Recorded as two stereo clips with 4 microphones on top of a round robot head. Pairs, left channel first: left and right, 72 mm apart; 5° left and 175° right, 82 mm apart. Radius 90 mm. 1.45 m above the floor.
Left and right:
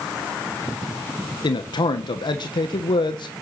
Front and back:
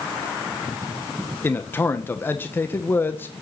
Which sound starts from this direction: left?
A man speaking, at 1.4 s.